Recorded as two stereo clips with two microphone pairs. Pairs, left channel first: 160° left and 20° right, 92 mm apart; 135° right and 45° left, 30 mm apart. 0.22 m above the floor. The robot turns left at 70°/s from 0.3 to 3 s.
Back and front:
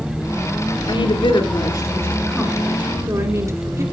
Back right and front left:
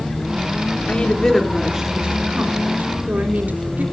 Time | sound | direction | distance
0.9 | a woman speaking | straight behind | 3.5 m